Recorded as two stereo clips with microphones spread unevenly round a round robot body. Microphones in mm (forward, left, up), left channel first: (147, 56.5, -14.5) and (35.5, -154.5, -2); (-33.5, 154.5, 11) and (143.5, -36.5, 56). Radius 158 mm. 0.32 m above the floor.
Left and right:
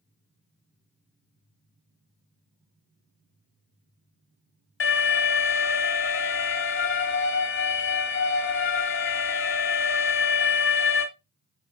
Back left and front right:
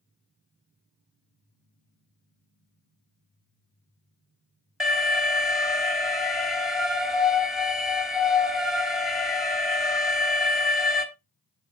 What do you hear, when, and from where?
4.8 s an alarm: 50° left, 3 m